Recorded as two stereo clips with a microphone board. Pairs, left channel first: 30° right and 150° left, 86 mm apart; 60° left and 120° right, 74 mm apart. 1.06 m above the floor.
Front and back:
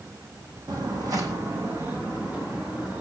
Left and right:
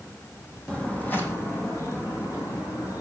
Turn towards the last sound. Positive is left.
turn(degrees=75)